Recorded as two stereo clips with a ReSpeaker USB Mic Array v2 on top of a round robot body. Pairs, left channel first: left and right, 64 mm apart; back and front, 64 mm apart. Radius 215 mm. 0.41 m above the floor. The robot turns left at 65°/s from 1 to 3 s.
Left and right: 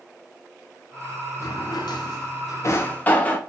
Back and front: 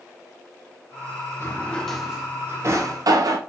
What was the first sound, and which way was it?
A drawer, 130° left.